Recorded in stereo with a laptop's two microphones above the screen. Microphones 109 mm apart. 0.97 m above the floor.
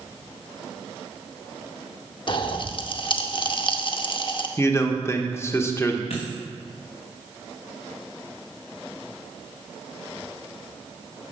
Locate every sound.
2.3 s a pop: 50° left (ahead or behind), 0.7 m
4.6 s a man speaking: 25° left (ahead or behind), 0.8 m
6.1 s a dropped coin: 65° left (ahead or behind), 3 m